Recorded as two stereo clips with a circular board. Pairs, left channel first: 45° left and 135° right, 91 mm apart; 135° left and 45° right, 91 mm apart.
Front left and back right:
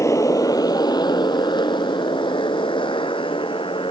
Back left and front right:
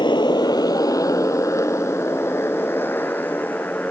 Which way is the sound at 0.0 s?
100° left.